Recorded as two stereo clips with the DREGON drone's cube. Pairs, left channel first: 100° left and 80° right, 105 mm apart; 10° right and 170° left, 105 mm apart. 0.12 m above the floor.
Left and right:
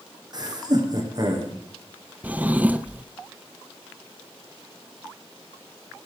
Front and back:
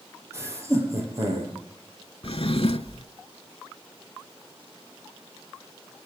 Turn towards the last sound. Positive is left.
turn(degrees=-5)